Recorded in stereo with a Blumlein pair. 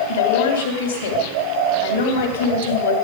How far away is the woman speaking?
About 3 m.